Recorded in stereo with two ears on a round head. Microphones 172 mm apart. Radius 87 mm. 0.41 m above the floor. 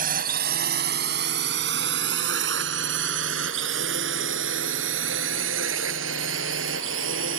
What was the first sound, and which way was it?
A drone, 50° right (ahead or behind).